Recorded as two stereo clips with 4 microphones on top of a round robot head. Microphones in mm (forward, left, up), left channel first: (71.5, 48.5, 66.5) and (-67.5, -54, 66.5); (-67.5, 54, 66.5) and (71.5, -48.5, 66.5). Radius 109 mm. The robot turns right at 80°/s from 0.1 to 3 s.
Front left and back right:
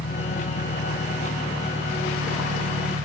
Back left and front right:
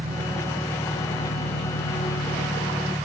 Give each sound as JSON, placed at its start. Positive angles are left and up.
{"t": 0.0, "sound": "an engine running", "azimuth_deg": 10}